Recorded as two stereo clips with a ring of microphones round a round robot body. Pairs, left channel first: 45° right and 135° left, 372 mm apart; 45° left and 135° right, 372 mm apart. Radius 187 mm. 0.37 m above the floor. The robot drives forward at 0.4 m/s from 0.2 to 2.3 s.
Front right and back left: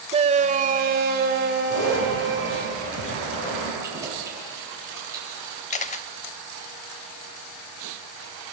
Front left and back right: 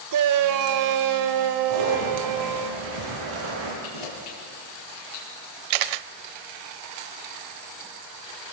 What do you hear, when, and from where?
0.1 s a shout: 155° right, 1.3 m; by 2.7 s 165° right, 2.0 m
1.7 s a zipper: 100° right, 8.5 m
3.8 s keys jangling: 50° left, 7 m
5.7 s a camera shutter: 120° right, 0.5 m